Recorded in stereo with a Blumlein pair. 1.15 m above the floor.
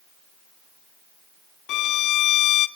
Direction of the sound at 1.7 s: 35° left.